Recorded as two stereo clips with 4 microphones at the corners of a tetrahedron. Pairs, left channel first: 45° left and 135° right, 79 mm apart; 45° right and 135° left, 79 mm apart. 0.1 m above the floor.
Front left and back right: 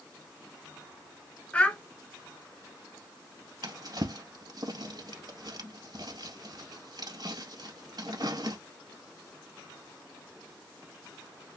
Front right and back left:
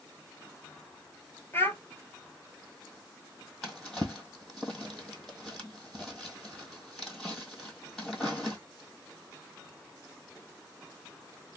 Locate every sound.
1.5 s a child speaking: 15° right, 1.2 m
3.6 s a drawer: 125° right, 1.8 m